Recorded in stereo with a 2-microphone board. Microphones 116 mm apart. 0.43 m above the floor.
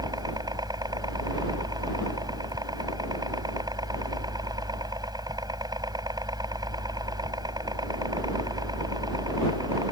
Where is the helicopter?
35° right (ahead or behind).